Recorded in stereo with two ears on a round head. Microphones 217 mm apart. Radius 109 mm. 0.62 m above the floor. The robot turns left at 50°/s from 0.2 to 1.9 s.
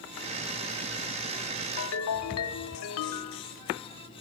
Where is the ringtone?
65° left (ahead or behind), 0.9 m; by 3.4 s 70° left (ahead or behind), 0.9 m.